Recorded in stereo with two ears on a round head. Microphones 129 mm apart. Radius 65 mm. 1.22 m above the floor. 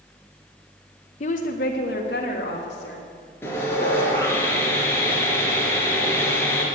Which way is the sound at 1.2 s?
45° left (ahead or behind).